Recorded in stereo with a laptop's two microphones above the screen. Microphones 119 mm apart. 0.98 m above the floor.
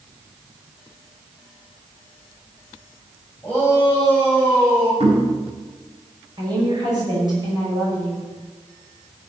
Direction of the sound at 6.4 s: 35° right (ahead or behind).